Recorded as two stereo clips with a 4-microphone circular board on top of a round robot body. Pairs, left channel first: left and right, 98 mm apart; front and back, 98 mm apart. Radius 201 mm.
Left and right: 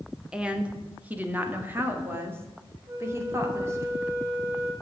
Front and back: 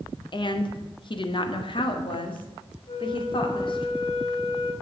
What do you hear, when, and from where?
0.3 s a woman speaking: 10° right, 1.6 m; by 3.9 s 30° right, 3 m
2.9 s a flute: 30° right, 2.5 m